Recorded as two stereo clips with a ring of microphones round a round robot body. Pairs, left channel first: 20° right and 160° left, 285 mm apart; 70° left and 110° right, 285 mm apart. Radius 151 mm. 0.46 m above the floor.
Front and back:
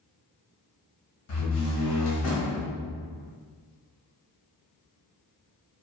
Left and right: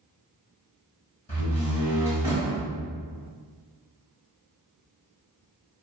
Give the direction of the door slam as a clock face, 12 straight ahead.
12 o'clock.